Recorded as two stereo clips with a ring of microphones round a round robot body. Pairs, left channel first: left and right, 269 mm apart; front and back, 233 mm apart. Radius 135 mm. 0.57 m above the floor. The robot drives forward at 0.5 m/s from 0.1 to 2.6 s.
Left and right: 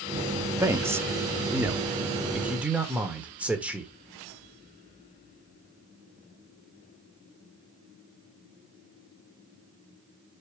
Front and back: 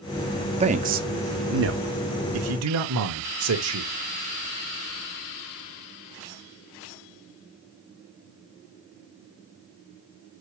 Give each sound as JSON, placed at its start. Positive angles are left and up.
{"t": 0.6, "sound": "a man speaking", "azimuth_deg": -160, "distance_m": 0.7}